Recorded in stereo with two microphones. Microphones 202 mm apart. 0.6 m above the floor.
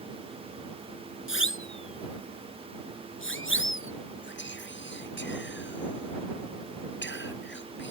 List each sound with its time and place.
1.3 s a siren: 80° left
4.2 s whispering: 65° left (ahead or behind)